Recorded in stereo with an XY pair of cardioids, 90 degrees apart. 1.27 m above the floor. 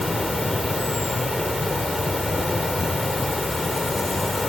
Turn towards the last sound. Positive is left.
turn(degrees=15)